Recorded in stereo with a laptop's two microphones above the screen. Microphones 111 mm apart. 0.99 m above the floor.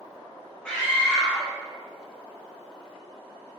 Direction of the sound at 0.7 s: 10° left (ahead or behind).